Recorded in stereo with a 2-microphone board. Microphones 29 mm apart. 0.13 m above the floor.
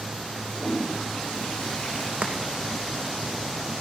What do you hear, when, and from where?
0.5 s a toilet flushing: 35° left (ahead or behind), 3 m
2.2 s chopping: 60° right (ahead or behind), 2.5 m